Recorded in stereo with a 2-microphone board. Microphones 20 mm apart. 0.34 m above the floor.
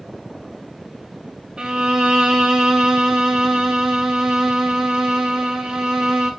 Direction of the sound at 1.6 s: 45° right (ahead or behind).